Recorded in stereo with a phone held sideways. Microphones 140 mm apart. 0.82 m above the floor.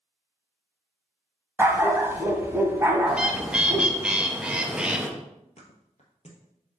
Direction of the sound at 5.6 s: 50° left (ahead or behind).